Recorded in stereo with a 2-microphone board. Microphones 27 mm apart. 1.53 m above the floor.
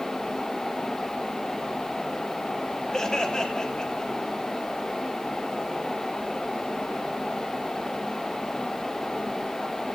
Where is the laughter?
20° left (ahead or behind), 2.5 m; by 4.3 s 30° left (ahead or behind), 4 m.